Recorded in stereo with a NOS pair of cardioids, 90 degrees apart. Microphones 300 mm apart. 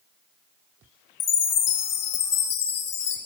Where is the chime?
60° left, 1.2 m.